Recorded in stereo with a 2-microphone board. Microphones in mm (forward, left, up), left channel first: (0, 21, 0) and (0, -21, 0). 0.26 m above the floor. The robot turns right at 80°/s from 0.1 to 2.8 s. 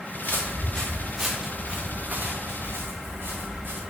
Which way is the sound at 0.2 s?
55° left (ahead or behind).